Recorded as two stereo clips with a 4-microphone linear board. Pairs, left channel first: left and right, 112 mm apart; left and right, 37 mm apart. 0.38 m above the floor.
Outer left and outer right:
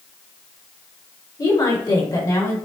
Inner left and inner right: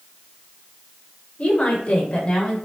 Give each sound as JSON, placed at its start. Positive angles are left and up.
{"t": 1.4, "sound": "a woman speaking", "side_deg": 35, "distance_m": 1.6}